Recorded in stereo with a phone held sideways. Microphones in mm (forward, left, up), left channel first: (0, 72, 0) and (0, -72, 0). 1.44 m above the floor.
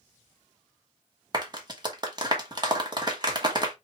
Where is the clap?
30° right (ahead or behind), 1.2 m.